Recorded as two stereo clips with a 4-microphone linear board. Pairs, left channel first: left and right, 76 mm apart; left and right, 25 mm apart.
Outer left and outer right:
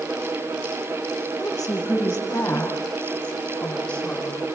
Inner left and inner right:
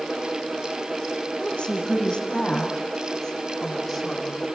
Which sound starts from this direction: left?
A woman speaking, at 1.4 s.